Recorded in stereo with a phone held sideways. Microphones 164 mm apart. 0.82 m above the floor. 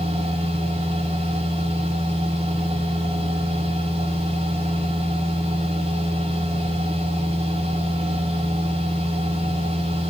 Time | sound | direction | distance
0.0 | a machine running | 35° right (ahead or behind) | 6.5 m